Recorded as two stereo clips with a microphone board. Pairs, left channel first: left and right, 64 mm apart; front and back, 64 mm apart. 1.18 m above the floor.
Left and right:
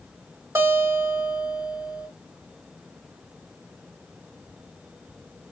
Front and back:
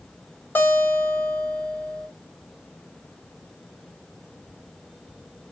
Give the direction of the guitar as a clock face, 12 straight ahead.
2 o'clock.